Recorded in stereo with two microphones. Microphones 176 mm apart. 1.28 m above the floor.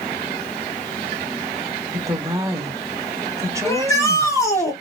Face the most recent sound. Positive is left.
turn(degrees=15)  # may be behind; listen again after turning